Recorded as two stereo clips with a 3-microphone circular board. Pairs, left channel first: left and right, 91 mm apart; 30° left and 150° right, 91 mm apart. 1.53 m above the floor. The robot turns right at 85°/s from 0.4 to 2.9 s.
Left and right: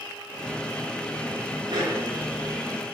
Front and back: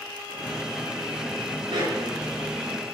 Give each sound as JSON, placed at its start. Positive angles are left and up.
{"t": 1.7, "sound": "a dog barking", "azimuth_deg": -120, "distance_m": 5.5}